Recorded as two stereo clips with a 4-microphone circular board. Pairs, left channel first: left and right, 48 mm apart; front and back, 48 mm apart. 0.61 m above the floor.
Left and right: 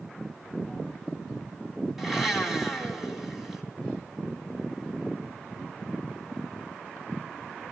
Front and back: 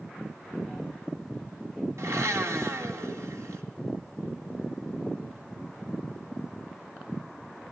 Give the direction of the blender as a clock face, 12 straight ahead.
6 o'clock.